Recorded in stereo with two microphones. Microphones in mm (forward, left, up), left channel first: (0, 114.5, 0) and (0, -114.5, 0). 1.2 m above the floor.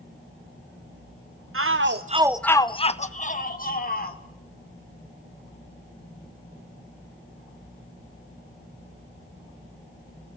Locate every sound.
1.5 s a shout: 65° right (ahead or behind), 0.9 m; by 4.2 s 40° left (ahead or behind), 3 m